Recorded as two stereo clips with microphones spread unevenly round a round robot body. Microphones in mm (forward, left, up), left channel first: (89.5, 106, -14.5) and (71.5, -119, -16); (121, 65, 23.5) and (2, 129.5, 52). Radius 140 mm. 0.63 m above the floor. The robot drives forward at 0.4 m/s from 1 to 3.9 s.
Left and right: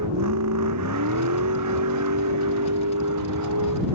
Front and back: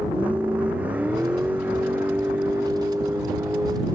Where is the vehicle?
125° right.